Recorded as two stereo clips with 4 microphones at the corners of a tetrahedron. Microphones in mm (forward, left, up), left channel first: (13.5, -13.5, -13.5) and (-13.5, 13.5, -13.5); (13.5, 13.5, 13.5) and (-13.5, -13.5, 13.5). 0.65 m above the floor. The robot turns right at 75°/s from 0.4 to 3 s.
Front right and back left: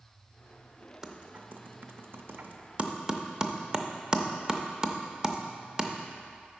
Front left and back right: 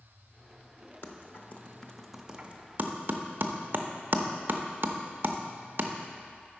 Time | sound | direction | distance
1.0 | typing on a keyboard | 60° left | 0.5 m